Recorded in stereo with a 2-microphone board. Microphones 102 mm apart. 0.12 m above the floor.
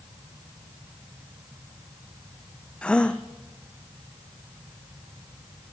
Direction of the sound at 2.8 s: 10° left (ahead or behind).